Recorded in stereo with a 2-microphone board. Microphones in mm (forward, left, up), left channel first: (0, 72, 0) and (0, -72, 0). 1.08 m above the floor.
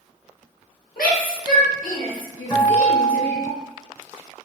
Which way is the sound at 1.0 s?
85° left.